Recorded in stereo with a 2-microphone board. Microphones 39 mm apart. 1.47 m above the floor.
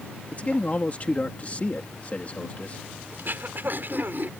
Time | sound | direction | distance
0.3 | a man speaking | 35° left (ahead or behind) | ?
3.1 | throat clearing | 60° right (ahead or behind) | ?